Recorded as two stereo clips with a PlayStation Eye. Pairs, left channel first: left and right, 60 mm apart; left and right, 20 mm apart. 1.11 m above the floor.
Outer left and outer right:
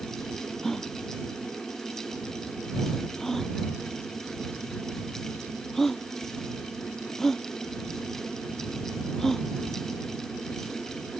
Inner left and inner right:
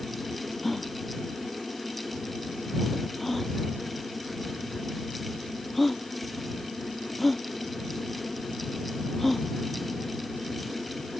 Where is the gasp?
5° left (ahead or behind).